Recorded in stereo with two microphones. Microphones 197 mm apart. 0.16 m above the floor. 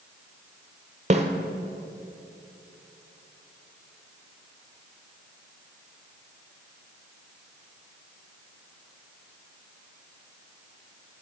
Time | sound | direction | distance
1.1 | a snare drum | 35° right (ahead or behind) | 1.4 m